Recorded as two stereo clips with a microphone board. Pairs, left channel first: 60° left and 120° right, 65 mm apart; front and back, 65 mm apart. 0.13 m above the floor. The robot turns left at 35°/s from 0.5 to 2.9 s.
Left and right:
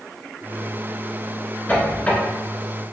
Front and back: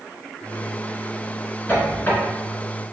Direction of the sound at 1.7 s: 25° left.